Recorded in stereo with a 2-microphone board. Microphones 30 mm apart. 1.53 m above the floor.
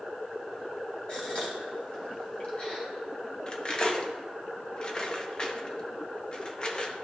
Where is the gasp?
40° left (ahead or behind), 1.9 m.